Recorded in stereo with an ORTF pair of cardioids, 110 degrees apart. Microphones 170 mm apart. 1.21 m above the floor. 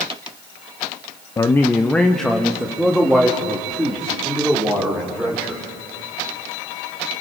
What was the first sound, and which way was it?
A man speaking, 20° left.